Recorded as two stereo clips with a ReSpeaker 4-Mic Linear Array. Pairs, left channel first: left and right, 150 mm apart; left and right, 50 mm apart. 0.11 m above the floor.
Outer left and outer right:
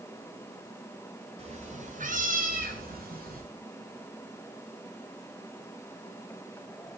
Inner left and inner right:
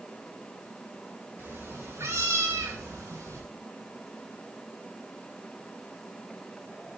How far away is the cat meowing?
About 1.9 m.